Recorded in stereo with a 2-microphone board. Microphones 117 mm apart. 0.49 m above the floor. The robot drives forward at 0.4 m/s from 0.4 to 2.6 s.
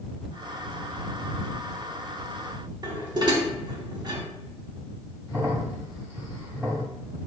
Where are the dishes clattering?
40° right (ahead or behind), 0.9 m.